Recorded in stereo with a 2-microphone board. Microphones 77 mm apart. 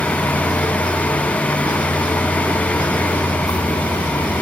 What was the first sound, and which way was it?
A vehicle, 50° left (ahead or behind).